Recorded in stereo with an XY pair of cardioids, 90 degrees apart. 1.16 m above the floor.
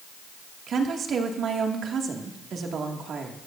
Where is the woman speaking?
65° right, 2 m.